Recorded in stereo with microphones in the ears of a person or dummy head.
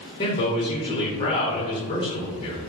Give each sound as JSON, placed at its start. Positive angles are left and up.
{"t": 0.2, "sound": "a man speaking", "side_deg": 25, "distance_m": 0.7}